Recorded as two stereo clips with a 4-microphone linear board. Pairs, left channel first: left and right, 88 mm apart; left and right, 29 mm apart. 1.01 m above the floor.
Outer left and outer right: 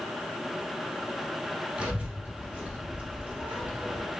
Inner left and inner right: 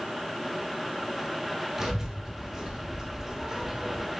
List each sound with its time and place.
1.8 s a child speaking: 10° right (ahead or behind), 3.5 m; by 4.0 s 20° right (ahead or behind), 1.8 m